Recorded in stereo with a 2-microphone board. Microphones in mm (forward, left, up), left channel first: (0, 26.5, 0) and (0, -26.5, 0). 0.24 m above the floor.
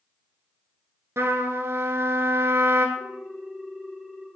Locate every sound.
1.2 s a trumpet: 55° right (ahead or behind), 0.9 m
3.0 s a ringtone: 5° left (ahead or behind), 2 m